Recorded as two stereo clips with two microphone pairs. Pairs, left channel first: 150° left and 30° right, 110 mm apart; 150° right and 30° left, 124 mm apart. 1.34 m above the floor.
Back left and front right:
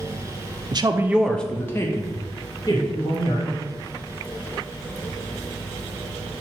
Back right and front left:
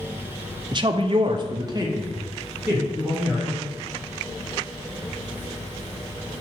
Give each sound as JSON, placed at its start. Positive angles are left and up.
{"t": 0.7, "sound": "a woman speaking", "azimuth_deg": -5, "distance_m": 0.6}